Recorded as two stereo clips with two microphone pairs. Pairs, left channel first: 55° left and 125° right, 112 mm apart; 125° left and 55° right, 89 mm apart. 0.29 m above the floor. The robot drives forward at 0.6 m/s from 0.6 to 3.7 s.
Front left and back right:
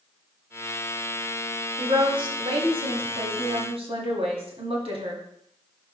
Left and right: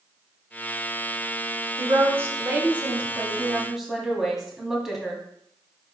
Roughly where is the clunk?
I don't hear a clunk.